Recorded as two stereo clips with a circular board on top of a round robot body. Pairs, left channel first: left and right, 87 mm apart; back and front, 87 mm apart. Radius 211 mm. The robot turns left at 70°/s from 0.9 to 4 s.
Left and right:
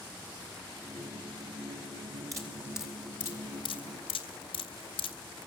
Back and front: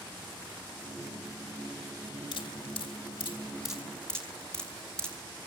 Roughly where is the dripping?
Behind right.